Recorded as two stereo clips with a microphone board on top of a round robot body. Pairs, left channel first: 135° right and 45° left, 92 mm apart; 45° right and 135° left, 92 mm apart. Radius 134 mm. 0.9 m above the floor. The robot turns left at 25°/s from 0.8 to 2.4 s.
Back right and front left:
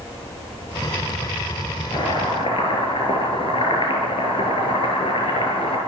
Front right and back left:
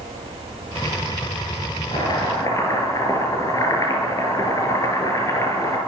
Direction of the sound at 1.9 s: 90° right.